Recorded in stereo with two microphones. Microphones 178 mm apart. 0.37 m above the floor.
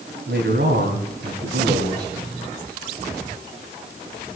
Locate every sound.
0.3 s a man speaking: 70° right (ahead or behind), 3 m